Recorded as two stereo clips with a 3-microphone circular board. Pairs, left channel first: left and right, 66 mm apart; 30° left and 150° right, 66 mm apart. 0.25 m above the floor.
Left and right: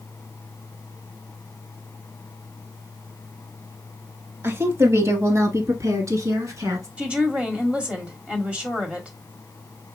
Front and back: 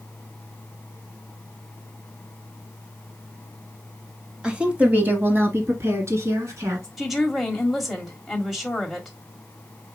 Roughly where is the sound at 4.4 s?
Right.